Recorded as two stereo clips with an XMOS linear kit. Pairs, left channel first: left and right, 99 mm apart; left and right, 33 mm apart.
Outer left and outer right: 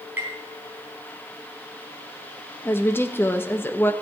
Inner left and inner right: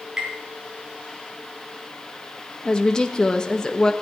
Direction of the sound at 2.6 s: 20° left (ahead or behind).